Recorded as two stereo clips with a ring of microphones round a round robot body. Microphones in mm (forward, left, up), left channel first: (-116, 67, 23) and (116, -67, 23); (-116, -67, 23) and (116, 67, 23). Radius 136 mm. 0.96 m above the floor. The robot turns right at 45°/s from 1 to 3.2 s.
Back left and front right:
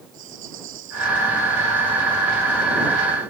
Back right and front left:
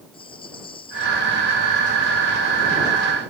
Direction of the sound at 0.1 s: 80° right.